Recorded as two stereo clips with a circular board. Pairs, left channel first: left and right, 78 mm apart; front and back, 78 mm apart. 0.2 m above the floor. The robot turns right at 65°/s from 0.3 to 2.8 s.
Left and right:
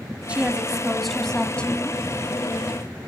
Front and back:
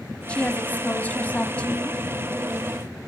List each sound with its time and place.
0.3 s a woman speaking: 45° right, 1.0 m; by 2.0 s 65° left, 1.0 m